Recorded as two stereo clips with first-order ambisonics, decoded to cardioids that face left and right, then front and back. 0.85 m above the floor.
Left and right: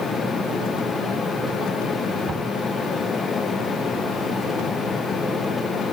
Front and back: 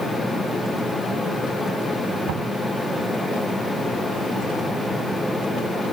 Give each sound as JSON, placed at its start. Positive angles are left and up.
{"t": 2.3, "sound": "knocking", "azimuth_deg": -160}